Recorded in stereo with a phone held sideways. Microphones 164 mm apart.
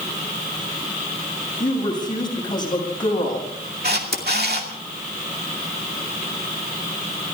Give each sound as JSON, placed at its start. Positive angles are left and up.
{"t": 1.6, "sound": "a woman speaking", "side_deg": 25, "distance_m": 7.0}
{"t": 3.8, "sound": "a camera shutter", "side_deg": -75, "distance_m": 2.5}